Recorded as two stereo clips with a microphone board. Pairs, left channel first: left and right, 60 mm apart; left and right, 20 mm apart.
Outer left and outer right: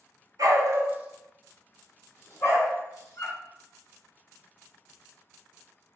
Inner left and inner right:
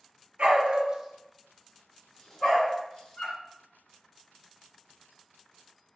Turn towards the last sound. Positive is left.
turn(degrees=50)  # may be behind; listen again after turning